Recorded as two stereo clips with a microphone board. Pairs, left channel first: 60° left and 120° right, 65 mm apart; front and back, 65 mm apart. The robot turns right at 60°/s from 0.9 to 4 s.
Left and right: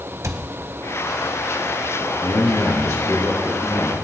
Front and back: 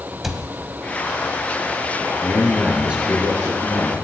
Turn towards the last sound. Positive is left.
turn(degrees=170)